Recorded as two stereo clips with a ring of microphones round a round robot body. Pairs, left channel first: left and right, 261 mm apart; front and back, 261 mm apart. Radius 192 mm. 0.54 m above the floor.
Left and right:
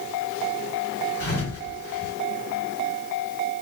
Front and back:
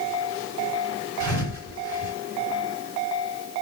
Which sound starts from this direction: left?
A thud, at 1.2 s.